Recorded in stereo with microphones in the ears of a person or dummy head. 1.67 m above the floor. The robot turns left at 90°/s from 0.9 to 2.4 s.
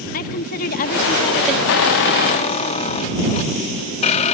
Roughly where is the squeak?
Left.